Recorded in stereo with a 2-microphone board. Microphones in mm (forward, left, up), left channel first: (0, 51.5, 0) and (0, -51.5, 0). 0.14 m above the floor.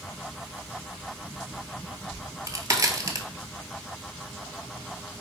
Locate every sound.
2.1 s a crack: 30° right (ahead or behind), 0.6 m